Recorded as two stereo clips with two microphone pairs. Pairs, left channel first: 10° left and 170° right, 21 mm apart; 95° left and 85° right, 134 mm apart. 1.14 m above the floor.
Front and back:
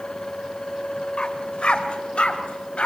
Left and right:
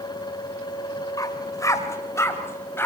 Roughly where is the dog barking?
Ahead left.